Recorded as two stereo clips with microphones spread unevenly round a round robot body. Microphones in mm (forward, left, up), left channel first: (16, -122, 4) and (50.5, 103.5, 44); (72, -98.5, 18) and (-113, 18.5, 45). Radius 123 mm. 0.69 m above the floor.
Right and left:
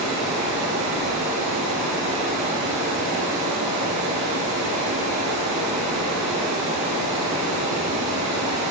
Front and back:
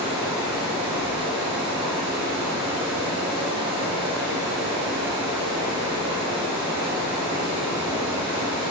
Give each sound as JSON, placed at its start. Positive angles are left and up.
{"t": 0.0, "sound": "running water", "azimuth_deg": 75, "distance_m": 1.7}